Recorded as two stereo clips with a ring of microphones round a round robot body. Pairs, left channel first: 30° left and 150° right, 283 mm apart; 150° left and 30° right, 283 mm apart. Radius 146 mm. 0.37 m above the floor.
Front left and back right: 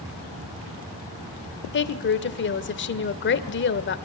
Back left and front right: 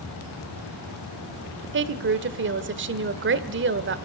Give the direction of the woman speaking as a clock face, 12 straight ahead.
12 o'clock.